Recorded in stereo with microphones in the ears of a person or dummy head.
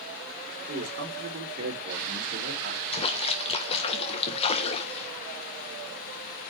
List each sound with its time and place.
0.7 s a man speaking: 55° right (ahead or behind), 4.5 m
2.9 s a splash: 30° left (ahead or behind), 1.3 m